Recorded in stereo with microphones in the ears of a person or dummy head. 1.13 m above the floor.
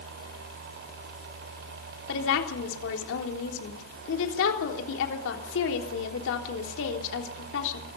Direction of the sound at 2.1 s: 70° left (ahead or behind).